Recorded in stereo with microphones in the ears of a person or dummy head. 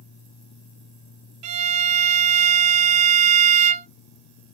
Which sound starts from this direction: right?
A violin, at 1.4 s.